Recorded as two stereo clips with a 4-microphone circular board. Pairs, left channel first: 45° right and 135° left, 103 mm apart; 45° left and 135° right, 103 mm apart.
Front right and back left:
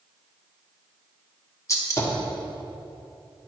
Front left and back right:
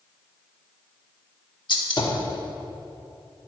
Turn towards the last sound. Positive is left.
turn(degrees=10)